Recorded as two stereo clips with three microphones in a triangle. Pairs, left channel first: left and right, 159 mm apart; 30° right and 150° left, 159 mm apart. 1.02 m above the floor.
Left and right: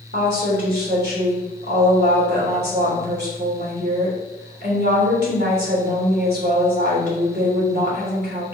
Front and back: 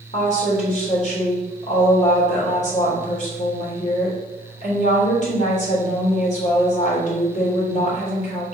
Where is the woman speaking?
75° right, 3.5 m.